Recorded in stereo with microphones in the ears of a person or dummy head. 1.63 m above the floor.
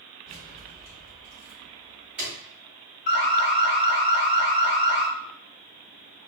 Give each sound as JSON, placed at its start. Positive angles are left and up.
{"t": 0.3, "sound": "keys jangling", "side_deg": -5, "distance_m": 1.8}
{"t": 3.1, "sound": "an alarm", "side_deg": 50, "distance_m": 0.8}